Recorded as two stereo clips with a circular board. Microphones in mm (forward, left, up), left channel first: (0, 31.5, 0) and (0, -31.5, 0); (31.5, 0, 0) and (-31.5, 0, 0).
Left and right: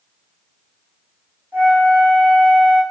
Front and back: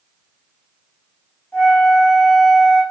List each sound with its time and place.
1.5 s a flute: 55° right, 2.0 m